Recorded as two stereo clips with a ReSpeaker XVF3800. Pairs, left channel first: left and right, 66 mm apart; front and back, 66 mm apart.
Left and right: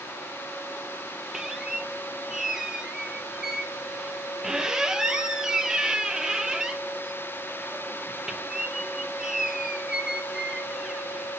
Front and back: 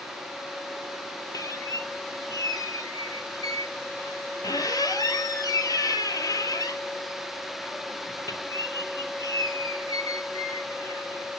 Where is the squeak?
10° right, 0.6 m.